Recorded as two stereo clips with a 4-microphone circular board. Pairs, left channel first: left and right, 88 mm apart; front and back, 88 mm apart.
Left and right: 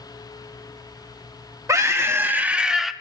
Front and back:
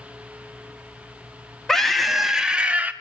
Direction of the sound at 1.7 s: 80° right.